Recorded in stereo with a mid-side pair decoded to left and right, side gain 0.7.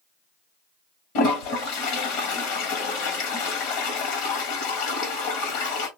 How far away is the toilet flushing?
About 1.4 m.